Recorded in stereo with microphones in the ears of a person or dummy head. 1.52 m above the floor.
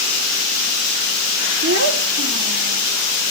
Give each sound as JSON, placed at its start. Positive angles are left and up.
{"t": 1.6, "sound": "a child speaking", "side_deg": -60, "distance_m": 1.5}